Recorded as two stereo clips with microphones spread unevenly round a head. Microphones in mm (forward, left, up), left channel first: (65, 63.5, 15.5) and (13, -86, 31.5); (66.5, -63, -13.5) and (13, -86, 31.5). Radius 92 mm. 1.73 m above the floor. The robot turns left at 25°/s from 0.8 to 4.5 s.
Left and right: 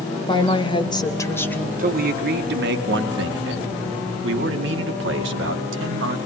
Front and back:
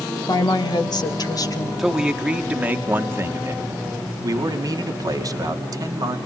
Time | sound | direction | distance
0.3 | a woman speaking | 10° left | 2 m
1.8 | a man speaking | 70° right | 2.5 m